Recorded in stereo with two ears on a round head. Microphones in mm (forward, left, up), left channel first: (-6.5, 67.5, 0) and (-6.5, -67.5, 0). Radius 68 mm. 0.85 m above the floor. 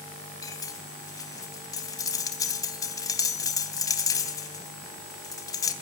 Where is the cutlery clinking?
25° left (ahead or behind), 3 m.